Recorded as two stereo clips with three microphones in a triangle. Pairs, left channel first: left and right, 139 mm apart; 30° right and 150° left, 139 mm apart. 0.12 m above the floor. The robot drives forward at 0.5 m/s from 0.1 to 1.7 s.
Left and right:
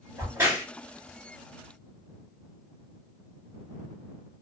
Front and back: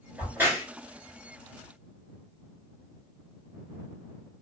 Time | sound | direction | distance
0.2 | a crack | 140° right | 1.8 m